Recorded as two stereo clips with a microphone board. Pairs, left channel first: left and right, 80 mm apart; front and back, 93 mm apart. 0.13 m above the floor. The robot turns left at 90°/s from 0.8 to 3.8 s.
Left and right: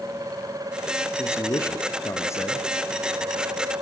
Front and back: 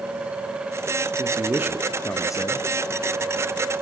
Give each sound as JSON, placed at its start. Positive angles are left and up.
{"t": 1.2, "sound": "a man speaking", "azimuth_deg": 150, "distance_m": 2.0}